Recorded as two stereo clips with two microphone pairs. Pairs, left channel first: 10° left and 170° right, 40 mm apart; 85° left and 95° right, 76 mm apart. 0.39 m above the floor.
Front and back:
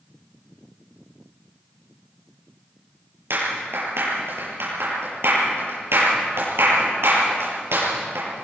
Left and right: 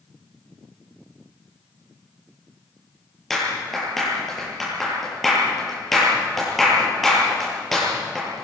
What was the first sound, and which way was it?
A clap, 175° left.